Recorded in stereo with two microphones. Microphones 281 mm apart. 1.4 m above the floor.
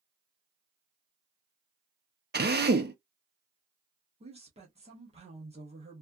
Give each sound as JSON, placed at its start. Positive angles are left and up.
{"t": 2.3, "sound": "a drill", "side_deg": -35, "distance_m": 0.6}
{"t": 4.2, "sound": "a woman speaking", "side_deg": -20, "distance_m": 1.1}